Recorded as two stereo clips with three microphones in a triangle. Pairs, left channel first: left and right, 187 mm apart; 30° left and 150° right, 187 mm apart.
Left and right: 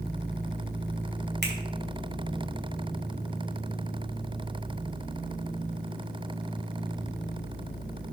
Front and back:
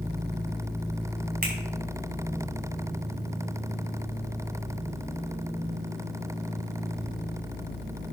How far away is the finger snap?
About 3.5 m.